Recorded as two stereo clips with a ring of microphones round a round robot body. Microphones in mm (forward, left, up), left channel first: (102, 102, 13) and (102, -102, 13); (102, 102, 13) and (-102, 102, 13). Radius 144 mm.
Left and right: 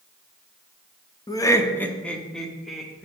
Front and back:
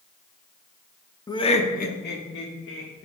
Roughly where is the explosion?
No explosion in this recording.